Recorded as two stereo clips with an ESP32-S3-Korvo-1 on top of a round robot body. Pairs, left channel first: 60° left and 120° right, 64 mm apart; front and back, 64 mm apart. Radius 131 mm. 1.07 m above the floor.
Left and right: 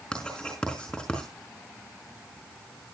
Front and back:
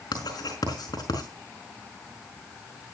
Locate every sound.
0.1 s writing: 20° right, 5 m